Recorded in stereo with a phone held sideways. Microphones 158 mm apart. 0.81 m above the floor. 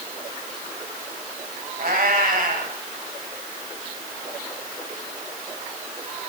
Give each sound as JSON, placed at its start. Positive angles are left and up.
{"t": 1.8, "sound": "a cat meowing", "side_deg": -70, "distance_m": 2.0}